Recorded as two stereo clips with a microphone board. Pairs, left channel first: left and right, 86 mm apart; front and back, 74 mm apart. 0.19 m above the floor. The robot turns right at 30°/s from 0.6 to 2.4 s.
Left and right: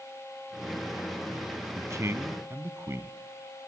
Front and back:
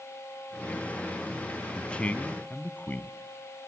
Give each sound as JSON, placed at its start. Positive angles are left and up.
{"t": 1.8, "sound": "a man speaking", "azimuth_deg": -70, "distance_m": 1.5}